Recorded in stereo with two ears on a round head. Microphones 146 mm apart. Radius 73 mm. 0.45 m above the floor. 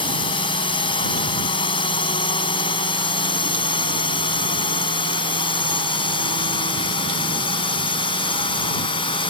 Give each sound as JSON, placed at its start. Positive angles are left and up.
{"t": 0.0, "sound": "a drone", "side_deg": 35}